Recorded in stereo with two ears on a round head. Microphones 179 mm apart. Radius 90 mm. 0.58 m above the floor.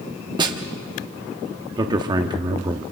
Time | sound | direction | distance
0.4 | a snare drum | 25° right (ahead or behind) | 1.3 m
1.8 | a man speaking | 20° right (ahead or behind) | 0.8 m